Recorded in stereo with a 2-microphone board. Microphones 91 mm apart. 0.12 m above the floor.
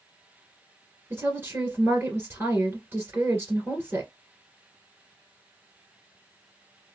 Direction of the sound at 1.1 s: 30° right (ahead or behind).